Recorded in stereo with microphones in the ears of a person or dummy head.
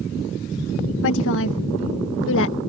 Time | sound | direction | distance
1.0 | a woman speaking | 75° left (ahead or behind) | ?